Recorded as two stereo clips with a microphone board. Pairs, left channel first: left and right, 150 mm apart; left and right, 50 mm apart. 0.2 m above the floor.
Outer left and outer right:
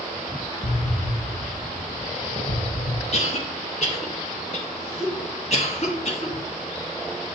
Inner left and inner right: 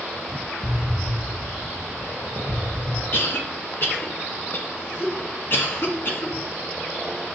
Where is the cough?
50° left (ahead or behind), 2 m.